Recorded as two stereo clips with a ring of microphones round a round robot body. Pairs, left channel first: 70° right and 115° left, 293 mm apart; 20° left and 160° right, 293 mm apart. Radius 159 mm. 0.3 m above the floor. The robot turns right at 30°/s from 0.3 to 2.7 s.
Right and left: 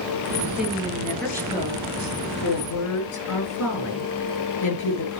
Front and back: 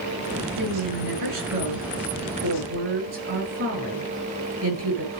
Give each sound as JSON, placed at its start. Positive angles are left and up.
{"t": 0.6, "sound": "a woman speaking", "azimuth_deg": -175, "distance_m": 7.0}